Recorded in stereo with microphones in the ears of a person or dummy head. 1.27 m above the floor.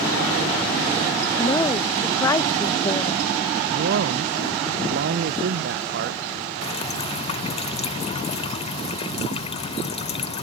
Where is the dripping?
35° left (ahead or behind).